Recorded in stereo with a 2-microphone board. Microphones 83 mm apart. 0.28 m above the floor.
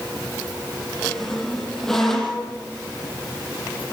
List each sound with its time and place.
1.0 s a squeak: 5° left (ahead or behind), 6.5 m